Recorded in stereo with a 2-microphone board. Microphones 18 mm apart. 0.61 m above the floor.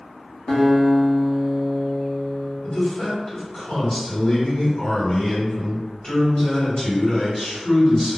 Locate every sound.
0.5 s a guitar: 20° left (ahead or behind), 0.9 m
2.6 s a man speaking: 40° left (ahead or behind), 1.6 m